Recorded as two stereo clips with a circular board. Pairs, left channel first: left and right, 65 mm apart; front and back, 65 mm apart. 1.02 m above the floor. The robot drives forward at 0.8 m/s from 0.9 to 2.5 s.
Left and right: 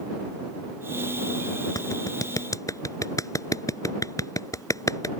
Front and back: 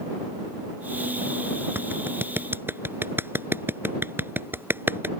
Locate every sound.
1.8 s a clap: 120° left; by 5.1 s 125° left